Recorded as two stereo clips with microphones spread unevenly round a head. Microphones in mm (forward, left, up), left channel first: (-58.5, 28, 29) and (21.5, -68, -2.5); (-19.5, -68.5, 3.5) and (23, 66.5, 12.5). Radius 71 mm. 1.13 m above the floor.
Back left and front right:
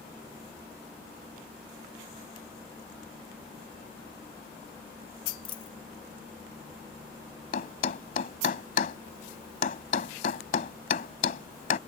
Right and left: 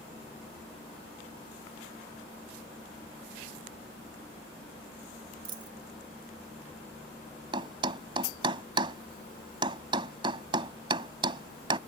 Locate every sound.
5.5 s a dropped coin: 120° left
7.5 s a thud: 130° left